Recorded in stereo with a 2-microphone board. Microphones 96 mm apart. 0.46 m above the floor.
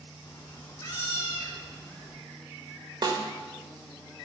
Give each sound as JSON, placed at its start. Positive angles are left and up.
{"t": 0.2, "sound": "a cat meowing", "side_deg": 35, "distance_m": 1.6}
{"t": 3.0, "sound": "a snare drum", "side_deg": -50, "distance_m": 1.3}